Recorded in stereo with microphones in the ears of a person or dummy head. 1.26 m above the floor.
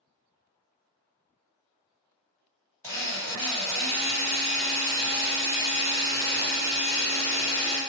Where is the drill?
15° left (ahead or behind), 1.7 m.